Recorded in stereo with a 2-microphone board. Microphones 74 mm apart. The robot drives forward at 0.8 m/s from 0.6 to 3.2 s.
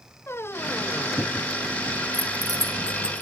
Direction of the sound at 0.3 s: 35° left (ahead or behind).